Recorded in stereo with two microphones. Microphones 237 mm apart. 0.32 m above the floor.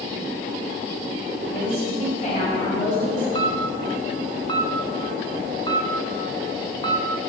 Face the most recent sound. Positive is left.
turn(degrees=20)  # may be behind; listen again after turning